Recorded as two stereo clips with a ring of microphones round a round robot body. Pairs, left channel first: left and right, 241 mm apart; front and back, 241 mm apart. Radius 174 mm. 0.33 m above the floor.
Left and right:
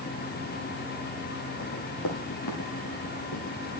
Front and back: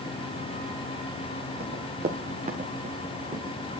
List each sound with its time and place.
1.6 s running footsteps: 135° left, 2.5 m; by 3.6 s 110° left, 3.5 m